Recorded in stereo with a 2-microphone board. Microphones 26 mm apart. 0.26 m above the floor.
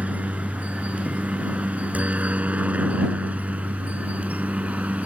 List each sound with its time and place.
0.0 s a helicopter: 65° right (ahead or behind)